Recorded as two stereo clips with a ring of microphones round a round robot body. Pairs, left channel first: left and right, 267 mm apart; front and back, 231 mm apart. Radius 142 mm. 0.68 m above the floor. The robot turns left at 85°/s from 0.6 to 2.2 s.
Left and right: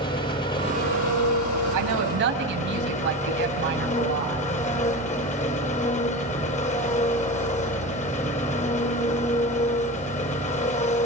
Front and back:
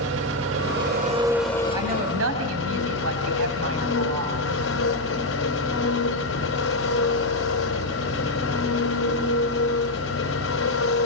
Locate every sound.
0.0 s an engine running: 160° left, 2.5 m; by 11.1 s 25° left, 2.5 m
1.7 s a woman speaking: 100° right, 5 m; by 4.5 s 140° right, 5 m